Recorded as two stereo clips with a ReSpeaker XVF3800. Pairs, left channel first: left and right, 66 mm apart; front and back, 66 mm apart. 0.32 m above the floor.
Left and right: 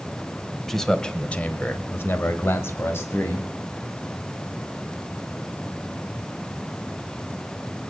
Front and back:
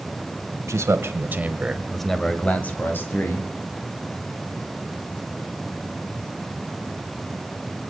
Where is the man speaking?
175° left, 1.5 m; by 3.5 s 45° left, 2 m.